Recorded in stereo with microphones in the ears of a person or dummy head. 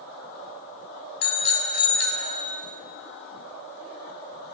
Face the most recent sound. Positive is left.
turn(degrees=65)  # may be behind; listen again after turning